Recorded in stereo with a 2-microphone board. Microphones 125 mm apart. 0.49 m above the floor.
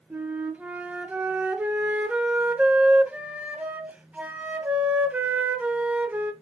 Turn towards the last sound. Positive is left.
turn(degrees=-10)  # may be behind; listen again after turning